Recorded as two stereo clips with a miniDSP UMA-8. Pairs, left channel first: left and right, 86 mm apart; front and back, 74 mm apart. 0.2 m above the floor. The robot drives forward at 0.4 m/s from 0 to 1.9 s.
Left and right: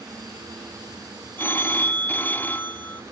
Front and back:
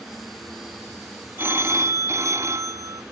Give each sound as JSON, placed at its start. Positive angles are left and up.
{"t": 1.4, "sound": "a phone ringing", "azimuth_deg": 140, "distance_m": 1.1}